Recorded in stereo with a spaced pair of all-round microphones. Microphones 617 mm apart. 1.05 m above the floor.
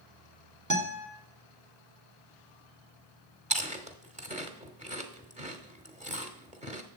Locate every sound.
0.7 s a guitar: 30° right (ahead or behind), 1.4 m
3.5 s chewing: 10° right (ahead or behind), 0.9 m